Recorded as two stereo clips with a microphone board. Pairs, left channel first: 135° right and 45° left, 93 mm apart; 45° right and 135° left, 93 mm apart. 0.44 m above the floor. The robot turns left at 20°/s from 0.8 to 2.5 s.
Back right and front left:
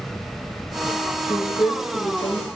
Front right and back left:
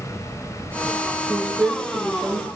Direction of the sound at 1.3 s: 145° right.